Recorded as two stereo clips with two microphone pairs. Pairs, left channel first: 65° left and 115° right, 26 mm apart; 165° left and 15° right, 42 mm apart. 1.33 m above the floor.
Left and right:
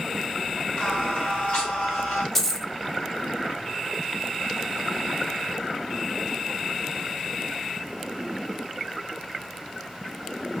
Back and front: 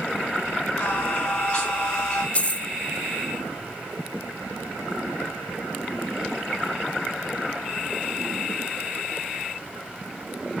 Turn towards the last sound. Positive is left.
turn(degrees=140)